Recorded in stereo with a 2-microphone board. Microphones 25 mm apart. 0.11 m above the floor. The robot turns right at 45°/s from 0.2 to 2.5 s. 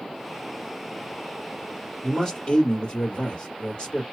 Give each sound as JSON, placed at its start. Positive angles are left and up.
{"t": 2.0, "sound": "a man speaking", "side_deg": 25, "distance_m": 2.5}